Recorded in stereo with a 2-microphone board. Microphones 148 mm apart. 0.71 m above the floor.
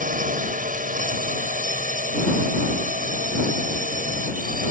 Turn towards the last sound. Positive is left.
turn(degrees=-65)  # may be behind; listen again after turning